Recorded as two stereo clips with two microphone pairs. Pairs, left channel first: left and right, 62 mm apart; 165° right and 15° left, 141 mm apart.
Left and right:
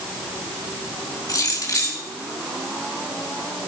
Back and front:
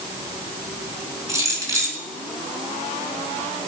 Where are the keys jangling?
80° left, 3.5 m.